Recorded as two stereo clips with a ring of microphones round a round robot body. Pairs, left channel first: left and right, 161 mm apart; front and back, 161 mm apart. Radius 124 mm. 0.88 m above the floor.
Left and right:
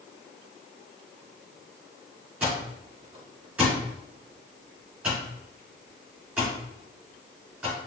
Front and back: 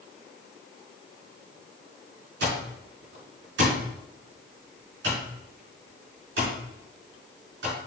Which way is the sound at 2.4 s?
175° right.